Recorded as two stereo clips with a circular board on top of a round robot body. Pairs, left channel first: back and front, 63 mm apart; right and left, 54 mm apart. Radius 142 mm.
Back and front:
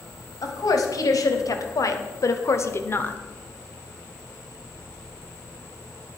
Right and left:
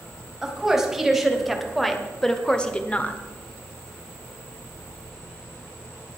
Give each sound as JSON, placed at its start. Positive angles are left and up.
{"t": 0.4, "sound": "a woman speaking", "azimuth_deg": 170, "distance_m": 3.0}